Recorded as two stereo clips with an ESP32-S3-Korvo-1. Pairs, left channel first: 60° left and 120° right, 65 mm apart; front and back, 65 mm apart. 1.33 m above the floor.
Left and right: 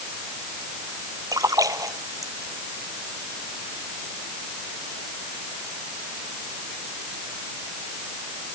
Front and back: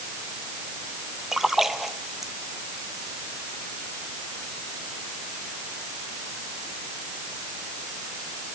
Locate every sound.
1.3 s a splash: 95° right